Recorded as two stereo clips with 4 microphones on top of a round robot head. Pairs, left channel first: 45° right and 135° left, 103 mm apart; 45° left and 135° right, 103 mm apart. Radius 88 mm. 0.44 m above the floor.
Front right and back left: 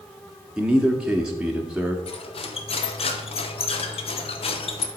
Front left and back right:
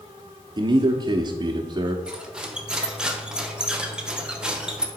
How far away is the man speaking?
About 0.9 m.